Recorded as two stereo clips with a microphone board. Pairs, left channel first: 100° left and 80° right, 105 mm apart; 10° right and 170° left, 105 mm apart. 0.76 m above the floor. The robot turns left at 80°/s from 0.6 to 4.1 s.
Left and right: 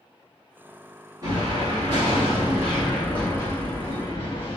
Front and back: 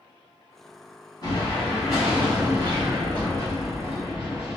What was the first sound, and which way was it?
An explosion, 40° right.